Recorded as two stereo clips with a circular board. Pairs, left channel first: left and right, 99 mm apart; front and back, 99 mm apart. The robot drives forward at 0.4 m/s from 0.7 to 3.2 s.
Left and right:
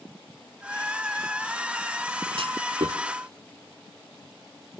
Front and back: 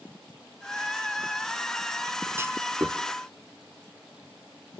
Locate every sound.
2.4 s a clunk: 115° right, 1.2 m; by 3.0 s 125° right, 1.3 m